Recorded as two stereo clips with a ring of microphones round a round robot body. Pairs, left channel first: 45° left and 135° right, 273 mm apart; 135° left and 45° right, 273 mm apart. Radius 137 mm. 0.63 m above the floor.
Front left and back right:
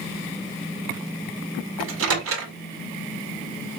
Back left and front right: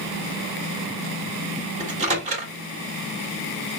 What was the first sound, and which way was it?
A microwave, 105° right.